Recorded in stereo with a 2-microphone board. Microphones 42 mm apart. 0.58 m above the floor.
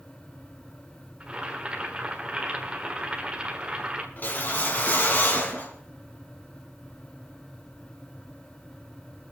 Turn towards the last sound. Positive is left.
turn(degrees=50)  # may be behind; listen again after turning